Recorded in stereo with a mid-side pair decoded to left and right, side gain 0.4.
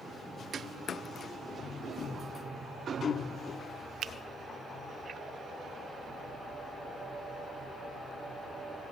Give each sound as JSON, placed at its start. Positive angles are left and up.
{"t": 4.0, "sound": "a finger snap", "azimuth_deg": -65, "distance_m": 0.6}